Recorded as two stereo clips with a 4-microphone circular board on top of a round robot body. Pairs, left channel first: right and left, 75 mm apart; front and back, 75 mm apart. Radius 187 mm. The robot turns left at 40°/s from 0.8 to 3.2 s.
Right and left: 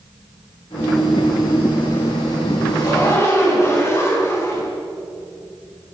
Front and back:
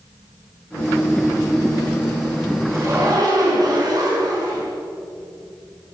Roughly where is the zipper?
Behind right.